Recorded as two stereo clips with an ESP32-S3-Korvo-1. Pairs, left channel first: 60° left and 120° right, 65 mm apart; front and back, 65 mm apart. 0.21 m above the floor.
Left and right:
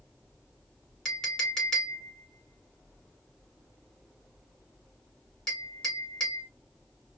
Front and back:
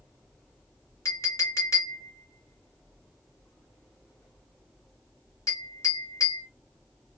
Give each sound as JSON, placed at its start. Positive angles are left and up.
{"t": 1.1, "sound": "a clink", "azimuth_deg": -20, "distance_m": 1.8}